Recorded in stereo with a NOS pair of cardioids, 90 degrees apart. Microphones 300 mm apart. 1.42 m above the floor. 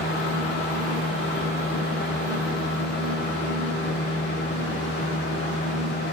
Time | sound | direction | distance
0.0 | a fan | 45° left | 3 m